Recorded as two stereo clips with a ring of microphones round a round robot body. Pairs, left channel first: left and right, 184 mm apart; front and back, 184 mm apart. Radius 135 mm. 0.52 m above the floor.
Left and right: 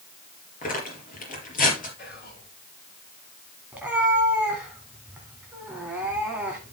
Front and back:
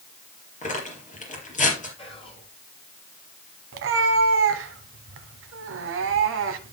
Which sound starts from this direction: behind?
A cat meowing, at 3.7 s.